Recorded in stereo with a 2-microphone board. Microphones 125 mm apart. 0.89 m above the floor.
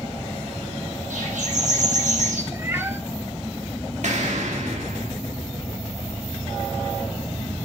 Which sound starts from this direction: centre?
A cat meowing, at 2.5 s.